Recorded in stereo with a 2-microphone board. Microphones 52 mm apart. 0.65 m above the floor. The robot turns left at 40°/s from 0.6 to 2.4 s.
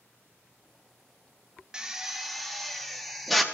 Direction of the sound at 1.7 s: 15° right (ahead or behind).